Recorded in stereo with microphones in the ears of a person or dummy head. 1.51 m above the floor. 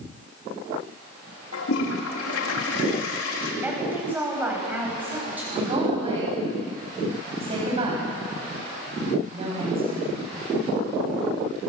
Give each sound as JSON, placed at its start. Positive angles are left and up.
{"t": 1.5, "sound": "a toilet flushing", "side_deg": 85, "distance_m": 3.5}
{"t": 3.6, "sound": "a woman speaking", "side_deg": -5, "distance_m": 7.5}
{"t": 5.5, "sound": "a woman speaking", "side_deg": -25, "distance_m": 9.0}